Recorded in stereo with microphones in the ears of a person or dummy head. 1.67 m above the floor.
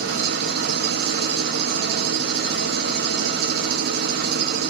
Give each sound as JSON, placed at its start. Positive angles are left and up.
{"t": 0.0, "sound": "an engine running", "side_deg": -60, "distance_m": 0.9}